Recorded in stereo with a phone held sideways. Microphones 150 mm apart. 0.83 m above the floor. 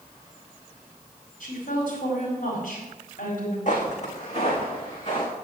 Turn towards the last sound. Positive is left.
turn(degrees=35)  # may be behind; listen again after turning